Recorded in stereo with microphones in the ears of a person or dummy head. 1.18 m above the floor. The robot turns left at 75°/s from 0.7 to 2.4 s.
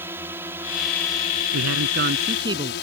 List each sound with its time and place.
0.0 s a drone: 165° right; by 2.8 s 70° left
1.5 s a man speaking: 90° right; by 2.7 s 155° right